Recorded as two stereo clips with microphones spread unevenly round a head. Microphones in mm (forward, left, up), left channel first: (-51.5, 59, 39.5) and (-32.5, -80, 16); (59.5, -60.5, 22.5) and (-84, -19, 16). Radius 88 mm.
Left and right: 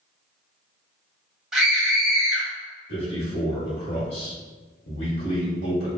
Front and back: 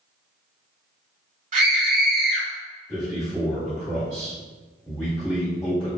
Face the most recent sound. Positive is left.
turn(degrees=80)